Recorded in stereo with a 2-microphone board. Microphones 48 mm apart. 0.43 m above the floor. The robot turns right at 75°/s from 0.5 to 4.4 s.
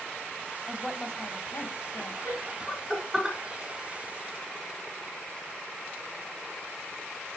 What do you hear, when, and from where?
0.7 s a woman speaking: 10° right, 2.0 m; by 2.1 s 100° left, 2.0 m
2.2 s laughter: 45° left (ahead or behind), 5 m; by 3.4 s 35° right (ahead or behind), 5 m